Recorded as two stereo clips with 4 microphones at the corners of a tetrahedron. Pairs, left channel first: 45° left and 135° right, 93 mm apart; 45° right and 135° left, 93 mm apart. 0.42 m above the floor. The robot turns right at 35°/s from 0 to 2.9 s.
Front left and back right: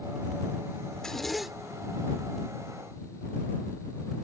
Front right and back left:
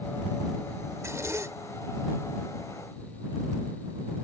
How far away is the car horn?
I don't hear a car horn.